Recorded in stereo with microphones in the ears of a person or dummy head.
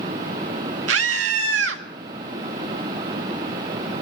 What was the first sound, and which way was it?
A scream, 65° right (ahead or behind).